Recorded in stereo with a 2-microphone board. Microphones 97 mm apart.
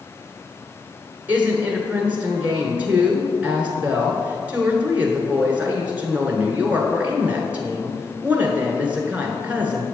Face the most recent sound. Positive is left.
turn(degrees=-15)  # may be behind; listen again after turning